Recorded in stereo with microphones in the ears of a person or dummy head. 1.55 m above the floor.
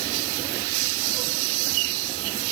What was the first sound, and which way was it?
Only background noise.